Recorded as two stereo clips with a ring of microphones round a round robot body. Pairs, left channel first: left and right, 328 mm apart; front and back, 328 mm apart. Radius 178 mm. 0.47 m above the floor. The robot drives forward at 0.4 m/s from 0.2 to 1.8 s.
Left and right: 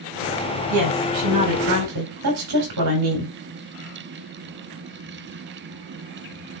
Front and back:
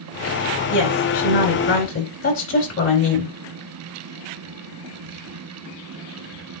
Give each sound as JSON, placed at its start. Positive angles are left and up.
{"t": 0.7, "sound": "a woman speaking", "azimuth_deg": -45, "distance_m": 5.0}